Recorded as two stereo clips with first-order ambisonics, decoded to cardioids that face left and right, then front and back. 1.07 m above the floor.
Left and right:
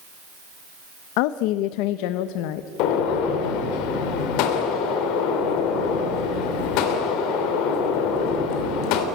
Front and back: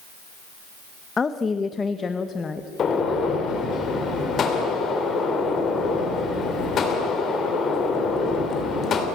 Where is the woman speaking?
75° left, 0.7 m.